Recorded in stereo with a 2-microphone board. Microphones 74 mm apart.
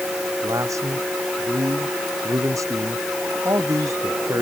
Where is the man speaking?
45° right (ahead or behind).